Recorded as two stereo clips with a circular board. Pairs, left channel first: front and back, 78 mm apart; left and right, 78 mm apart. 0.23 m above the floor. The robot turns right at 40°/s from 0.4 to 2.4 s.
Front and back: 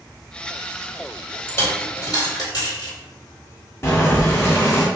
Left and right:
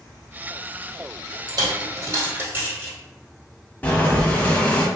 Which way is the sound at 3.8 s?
35° left.